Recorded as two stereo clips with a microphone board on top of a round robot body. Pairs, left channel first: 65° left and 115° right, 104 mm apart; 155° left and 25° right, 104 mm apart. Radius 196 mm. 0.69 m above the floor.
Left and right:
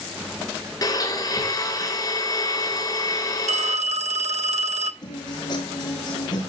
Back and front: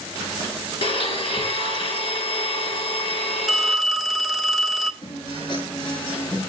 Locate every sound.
0.8 s a blender: 125° left, 4 m
3.5 s a phone ringing: 110° right, 1.4 m
5.0 s a guitar: 115° left, 7.5 m